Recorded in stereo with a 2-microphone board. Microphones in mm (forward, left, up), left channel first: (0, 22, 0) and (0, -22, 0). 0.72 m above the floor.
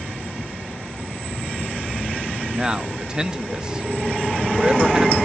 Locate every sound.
2.5 s a man speaking: 20° right (ahead or behind), 0.6 m